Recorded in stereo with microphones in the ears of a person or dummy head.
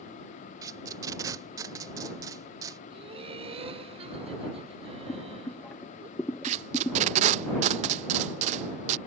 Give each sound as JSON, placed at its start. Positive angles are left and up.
{"t": 0.6, "sound": "tape being pulled", "side_deg": -20}
{"t": 2.9, "sound": "laughter", "side_deg": -30}
{"t": 5.1, "sound": "boiling", "side_deg": 10}
{"t": 6.4, "sound": "tape being pulled", "side_deg": -35}